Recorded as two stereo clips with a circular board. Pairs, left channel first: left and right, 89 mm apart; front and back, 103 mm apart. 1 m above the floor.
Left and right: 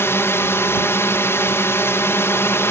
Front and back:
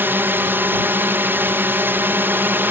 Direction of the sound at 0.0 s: 125° left.